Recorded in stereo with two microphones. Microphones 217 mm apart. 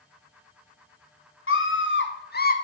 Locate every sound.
1.5 s a scream: 80° left, 1.1 m; by 2.5 s 45° left (ahead or behind), 0.9 m